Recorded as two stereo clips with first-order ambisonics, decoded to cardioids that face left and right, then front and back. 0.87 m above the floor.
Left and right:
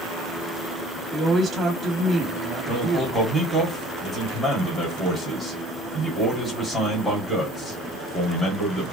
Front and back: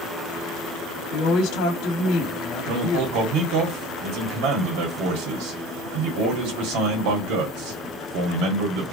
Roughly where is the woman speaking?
Ahead.